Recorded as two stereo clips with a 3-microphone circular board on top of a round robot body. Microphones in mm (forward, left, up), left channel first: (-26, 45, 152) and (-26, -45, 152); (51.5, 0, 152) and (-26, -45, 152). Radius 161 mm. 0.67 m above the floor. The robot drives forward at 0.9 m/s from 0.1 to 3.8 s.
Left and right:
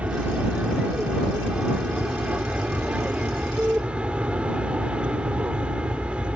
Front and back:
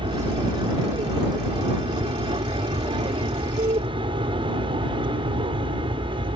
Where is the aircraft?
165° right; by 6.3 s 170° right.